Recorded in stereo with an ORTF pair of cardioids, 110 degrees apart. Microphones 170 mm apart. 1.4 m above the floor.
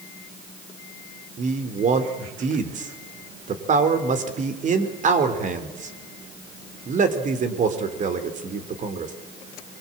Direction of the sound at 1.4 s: 45° right.